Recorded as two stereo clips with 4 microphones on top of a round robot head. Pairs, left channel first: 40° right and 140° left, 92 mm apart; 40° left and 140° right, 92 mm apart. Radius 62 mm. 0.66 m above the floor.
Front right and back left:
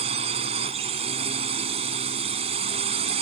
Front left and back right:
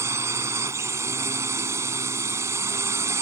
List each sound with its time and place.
0.0 s a drone: 155° left